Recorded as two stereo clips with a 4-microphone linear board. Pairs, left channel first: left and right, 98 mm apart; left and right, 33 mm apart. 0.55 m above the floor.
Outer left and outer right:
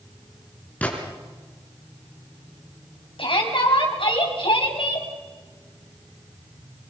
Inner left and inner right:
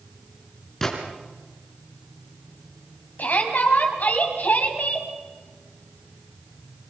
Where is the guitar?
No guitar in this recording.